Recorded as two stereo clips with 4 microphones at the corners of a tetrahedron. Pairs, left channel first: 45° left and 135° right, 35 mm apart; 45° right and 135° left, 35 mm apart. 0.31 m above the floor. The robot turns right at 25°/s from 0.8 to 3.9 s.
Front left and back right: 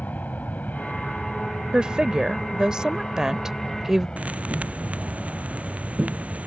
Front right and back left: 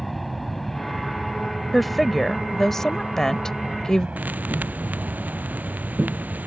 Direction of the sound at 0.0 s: 40° left.